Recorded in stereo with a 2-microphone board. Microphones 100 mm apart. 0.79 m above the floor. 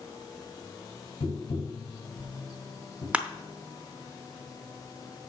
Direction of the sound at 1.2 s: 75° left (ahead or behind).